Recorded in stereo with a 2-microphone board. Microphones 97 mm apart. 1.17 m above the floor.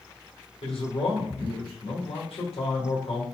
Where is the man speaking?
75° left (ahead or behind), 1.5 m.